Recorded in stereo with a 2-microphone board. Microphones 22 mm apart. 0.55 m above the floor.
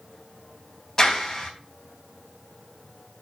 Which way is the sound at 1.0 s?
25° left (ahead or behind).